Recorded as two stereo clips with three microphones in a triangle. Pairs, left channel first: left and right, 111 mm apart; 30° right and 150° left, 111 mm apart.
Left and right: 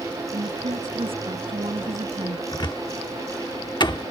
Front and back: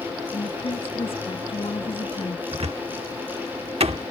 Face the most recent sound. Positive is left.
turn(degrees=135)